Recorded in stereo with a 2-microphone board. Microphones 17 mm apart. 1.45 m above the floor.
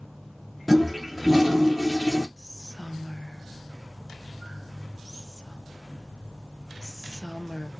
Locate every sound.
0.7 s a toilet flushing: 5° right (ahead or behind), 0.7 m
2.4 s whispering: 40° left (ahead or behind), 0.7 m